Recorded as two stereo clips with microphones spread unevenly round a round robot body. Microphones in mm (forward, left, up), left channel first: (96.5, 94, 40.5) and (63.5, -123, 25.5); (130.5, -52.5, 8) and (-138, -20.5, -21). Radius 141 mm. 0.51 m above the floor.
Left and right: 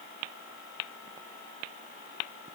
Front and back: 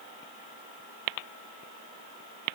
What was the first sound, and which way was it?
Only background noise.